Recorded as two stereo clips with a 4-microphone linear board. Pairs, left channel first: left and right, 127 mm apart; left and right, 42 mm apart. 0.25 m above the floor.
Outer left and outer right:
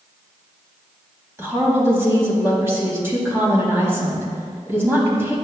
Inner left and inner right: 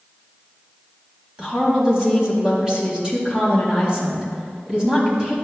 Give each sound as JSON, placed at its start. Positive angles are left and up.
{"t": 1.4, "sound": "a woman speaking", "side_deg": -20, "distance_m": 1.7}